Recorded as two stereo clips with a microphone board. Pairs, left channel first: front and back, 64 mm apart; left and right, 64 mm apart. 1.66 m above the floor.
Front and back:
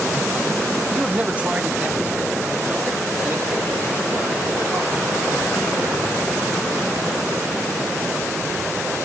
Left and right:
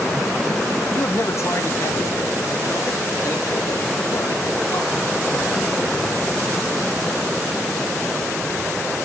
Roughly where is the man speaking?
Left.